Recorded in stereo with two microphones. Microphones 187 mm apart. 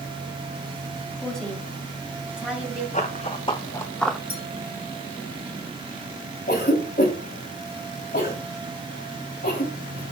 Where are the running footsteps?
40° left (ahead or behind), 1.4 m; by 4.2 s centre (ahead or behind), 0.9 m.